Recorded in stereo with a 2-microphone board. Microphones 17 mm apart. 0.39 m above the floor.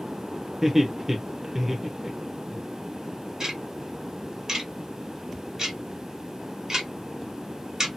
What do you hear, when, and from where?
0.6 s laughter: 15° right (ahead or behind), 0.8 m
3.4 s ticking: 30° right (ahead or behind), 1.4 m